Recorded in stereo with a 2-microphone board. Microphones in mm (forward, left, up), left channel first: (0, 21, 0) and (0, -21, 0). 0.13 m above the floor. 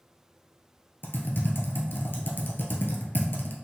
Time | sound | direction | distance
1.0 | typing on a keyboard | 60° left (ahead or behind) | 0.9 m